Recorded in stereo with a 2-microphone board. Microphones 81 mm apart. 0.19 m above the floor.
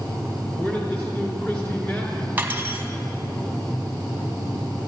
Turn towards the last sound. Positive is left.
turn(degrees=-25)  # may be behind; listen again after turning